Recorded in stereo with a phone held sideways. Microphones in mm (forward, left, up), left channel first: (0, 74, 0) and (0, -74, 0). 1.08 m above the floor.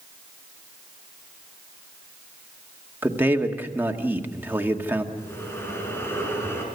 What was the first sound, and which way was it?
A man speaking, 15° right (ahead or behind).